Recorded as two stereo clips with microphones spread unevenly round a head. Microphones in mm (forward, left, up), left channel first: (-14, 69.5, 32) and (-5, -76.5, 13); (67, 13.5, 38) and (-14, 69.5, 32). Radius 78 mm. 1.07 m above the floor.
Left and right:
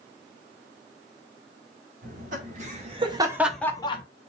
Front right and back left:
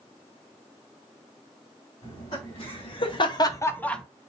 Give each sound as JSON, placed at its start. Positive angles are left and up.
{"t": 2.0, "sound": "laughter", "azimuth_deg": -70, "distance_m": 2.0}